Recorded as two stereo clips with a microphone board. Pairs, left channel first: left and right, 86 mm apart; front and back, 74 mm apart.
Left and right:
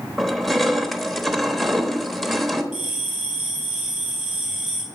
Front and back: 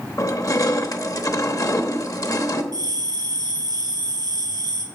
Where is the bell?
175° right, 3 m.